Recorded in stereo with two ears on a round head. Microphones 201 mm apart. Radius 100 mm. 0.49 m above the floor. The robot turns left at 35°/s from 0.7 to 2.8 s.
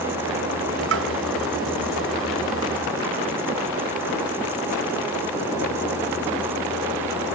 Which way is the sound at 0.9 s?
55° right (ahead or behind).